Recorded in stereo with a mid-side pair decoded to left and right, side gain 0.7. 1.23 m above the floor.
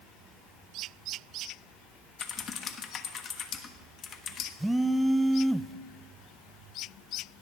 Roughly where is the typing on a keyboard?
Ahead left.